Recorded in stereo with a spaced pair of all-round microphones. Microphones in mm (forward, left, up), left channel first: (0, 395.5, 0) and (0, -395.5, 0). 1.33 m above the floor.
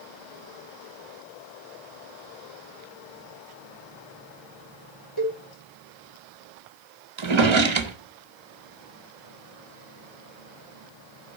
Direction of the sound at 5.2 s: 30° left (ahead or behind).